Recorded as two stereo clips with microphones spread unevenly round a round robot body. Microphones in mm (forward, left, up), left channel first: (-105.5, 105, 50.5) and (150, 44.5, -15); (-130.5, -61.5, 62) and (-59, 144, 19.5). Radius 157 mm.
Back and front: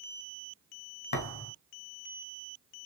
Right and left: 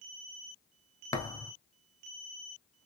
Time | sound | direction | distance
1.1 | a thud | straight behind | 1.1 m